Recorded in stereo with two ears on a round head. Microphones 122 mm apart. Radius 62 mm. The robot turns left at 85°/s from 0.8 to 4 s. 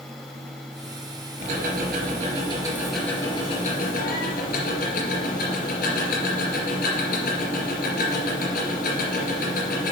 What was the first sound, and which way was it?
Ticking, 50° right.